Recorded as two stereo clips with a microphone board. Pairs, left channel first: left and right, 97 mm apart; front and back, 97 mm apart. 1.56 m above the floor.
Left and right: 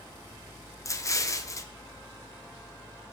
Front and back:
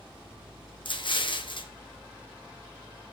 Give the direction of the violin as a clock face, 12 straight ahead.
I don't hear a violin.